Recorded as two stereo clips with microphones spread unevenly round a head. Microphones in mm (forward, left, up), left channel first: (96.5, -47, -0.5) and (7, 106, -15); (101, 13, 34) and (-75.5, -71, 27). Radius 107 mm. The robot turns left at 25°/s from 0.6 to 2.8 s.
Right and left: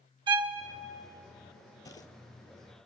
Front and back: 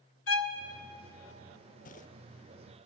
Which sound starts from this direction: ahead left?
A violin, at 0.3 s.